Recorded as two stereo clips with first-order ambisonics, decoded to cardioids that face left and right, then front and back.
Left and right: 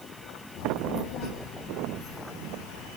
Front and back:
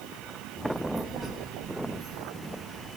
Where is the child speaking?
90° left, 0.9 m; by 2.9 s 135° left, 2 m.